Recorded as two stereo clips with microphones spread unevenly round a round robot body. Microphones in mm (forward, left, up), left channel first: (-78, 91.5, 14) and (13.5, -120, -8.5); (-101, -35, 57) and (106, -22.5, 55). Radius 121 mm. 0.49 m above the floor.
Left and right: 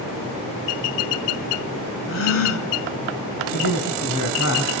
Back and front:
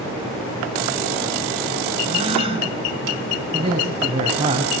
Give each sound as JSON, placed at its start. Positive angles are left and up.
{"t": 2.1, "sound": "a gasp", "azimuth_deg": 70, "distance_m": 3.0}
{"t": 3.5, "sound": "a man speaking", "azimuth_deg": 70, "distance_m": 4.0}